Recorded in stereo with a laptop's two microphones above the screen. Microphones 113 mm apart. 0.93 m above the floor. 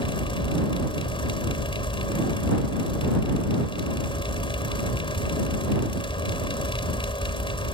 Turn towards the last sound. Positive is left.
turn(degrees=50)  # may be behind; listen again after turning